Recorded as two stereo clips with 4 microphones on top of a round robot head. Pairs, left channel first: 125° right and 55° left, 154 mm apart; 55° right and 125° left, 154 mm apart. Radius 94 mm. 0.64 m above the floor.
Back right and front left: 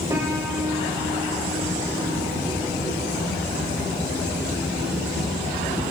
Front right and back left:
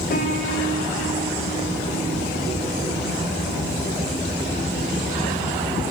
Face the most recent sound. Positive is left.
turn(degrees=-20)